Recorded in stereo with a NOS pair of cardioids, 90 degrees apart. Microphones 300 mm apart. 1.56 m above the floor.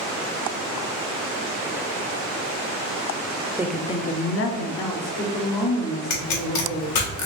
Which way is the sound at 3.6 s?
10° right.